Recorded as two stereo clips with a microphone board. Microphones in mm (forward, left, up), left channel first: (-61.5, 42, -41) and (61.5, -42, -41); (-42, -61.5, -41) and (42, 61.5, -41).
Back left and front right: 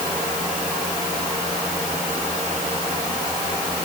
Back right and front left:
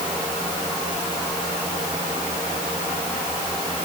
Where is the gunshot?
I don't hear a gunshot.